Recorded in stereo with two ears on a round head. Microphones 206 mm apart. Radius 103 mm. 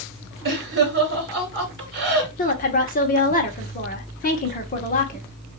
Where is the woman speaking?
35° left (ahead or behind), 1.4 m.